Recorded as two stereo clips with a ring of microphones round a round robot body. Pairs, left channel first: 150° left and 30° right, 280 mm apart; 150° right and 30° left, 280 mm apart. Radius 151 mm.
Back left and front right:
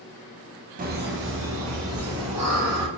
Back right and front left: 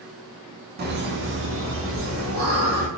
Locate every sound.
0.8 s laughter: 5° left, 0.8 m; by 2.9 s 5° right, 1.8 m